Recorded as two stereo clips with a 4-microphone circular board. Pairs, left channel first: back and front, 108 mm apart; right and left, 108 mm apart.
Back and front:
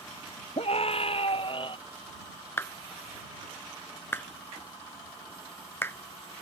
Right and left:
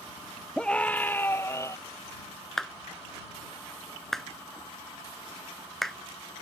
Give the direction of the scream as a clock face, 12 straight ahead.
6 o'clock.